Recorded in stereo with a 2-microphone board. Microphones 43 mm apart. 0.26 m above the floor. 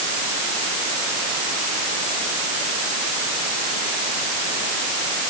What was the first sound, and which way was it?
Only background noise.